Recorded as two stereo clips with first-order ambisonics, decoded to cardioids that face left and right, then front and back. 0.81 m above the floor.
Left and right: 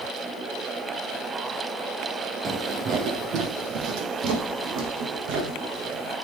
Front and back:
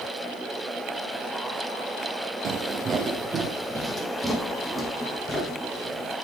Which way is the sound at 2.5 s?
140° right.